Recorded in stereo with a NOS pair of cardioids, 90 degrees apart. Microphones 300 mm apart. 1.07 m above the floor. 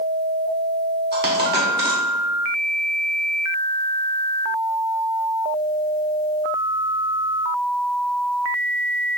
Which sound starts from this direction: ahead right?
A dropped coin, at 1.1 s.